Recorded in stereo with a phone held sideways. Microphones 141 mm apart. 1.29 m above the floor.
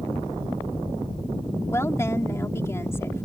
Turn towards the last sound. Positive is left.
turn(degrees=20)  # may be behind; listen again after turning